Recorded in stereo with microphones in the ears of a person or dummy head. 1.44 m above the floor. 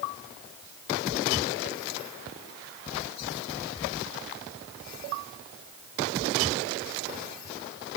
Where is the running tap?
I don't hear a running tap.